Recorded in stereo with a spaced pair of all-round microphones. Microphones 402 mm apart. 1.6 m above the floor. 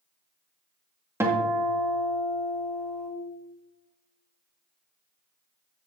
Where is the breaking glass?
I don't hear breaking glass.